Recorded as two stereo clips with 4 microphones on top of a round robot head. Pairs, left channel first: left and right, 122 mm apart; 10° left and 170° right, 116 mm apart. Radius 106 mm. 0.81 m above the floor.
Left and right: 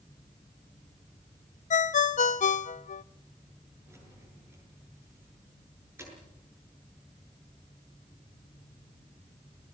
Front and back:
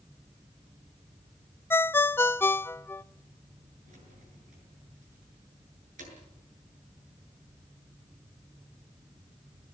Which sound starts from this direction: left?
A ringtone, at 1.7 s.